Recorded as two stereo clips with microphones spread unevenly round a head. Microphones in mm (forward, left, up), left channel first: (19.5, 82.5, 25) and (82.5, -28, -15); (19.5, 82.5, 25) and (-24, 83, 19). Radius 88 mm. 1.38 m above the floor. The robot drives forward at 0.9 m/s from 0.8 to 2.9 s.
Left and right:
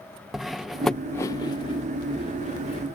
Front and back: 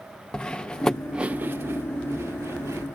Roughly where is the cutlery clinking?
Ahead left.